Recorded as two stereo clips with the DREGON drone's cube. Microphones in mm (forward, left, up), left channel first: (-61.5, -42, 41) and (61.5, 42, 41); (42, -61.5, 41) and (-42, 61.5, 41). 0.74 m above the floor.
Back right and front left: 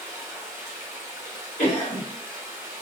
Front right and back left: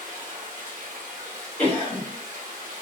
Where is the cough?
130° right, 1.5 m.